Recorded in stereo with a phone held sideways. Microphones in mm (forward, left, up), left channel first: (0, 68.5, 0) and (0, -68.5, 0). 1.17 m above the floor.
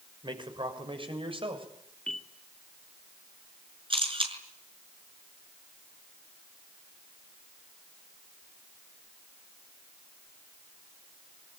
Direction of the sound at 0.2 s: 35° right (ahead or behind).